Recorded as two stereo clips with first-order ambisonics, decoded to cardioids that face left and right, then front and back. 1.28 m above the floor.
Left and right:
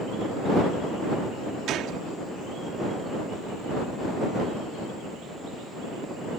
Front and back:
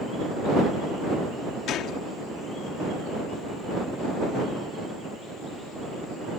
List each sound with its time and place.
1.7 s a gunshot: 45° right